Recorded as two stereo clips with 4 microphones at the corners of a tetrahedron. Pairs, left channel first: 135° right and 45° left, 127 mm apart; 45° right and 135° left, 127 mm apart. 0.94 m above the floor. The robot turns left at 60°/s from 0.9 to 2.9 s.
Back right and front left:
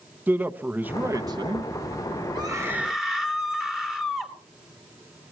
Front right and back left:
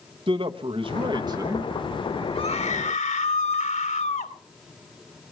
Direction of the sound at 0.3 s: 115° left.